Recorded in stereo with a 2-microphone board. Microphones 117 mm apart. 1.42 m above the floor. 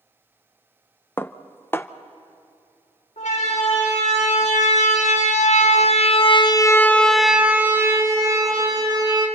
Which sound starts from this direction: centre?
Dishes clattering, at 1.2 s.